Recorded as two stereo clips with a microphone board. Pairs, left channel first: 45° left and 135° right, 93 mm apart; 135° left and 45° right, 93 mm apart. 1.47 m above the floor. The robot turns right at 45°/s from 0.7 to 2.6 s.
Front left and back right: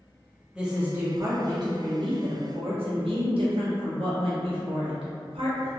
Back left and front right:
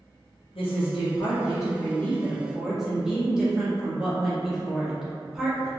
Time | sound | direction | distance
0.6 | a woman speaking | 145° left | 1.1 m